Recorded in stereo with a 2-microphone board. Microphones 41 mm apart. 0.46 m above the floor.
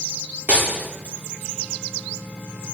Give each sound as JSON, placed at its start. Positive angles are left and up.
{"t": 0.5, "sound": "breaking glass", "side_deg": -40, "distance_m": 7.5}